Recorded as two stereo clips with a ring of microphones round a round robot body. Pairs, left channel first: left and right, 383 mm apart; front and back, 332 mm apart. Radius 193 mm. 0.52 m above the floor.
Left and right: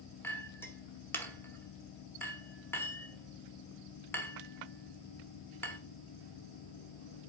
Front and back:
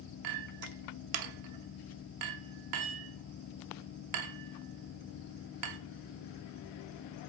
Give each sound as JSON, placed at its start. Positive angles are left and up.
{"t": 0.2, "sound": "a clink", "azimuth_deg": 175, "distance_m": 1.0}